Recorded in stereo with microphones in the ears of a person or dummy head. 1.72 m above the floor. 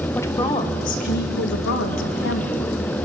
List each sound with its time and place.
0.1 s a woman speaking: 10° left (ahead or behind), 1.5 m; by 2.6 s 75° left (ahead or behind), 3 m